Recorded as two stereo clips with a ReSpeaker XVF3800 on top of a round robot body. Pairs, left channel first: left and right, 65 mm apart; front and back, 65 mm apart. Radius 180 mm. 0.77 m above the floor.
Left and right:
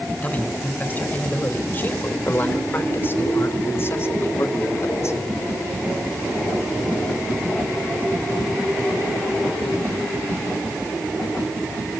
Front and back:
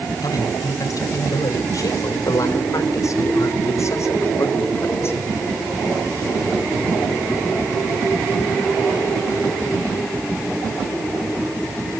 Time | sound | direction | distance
0.2 | a man speaking | 25° left | 5 m